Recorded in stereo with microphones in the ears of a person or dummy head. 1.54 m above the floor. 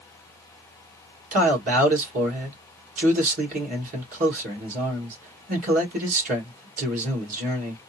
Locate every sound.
1.3 s a man speaking: 50° right (ahead or behind), 1.8 m